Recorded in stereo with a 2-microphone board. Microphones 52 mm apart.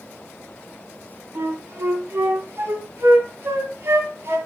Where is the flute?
50° right (ahead or behind), 2.5 m.